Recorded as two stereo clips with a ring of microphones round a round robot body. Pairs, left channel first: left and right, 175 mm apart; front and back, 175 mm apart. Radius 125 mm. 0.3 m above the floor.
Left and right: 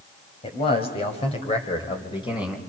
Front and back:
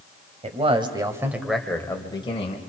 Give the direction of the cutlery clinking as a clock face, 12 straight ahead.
No cutlery clinking in this recording.